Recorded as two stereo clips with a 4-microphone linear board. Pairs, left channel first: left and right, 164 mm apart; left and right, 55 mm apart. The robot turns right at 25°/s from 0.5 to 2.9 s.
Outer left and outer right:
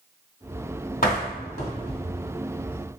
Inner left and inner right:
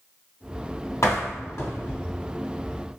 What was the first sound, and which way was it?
A door slam, 60° left (ahead or behind).